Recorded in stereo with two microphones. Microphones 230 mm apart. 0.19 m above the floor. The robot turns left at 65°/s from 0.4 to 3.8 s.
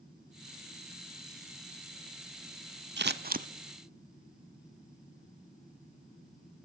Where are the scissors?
50° right (ahead or behind), 0.5 m; by 3.5 s 35° right (ahead or behind), 0.5 m.